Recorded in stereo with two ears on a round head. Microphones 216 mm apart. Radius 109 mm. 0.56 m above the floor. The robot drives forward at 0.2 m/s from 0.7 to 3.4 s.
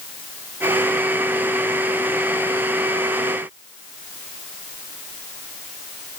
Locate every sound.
Only background noise.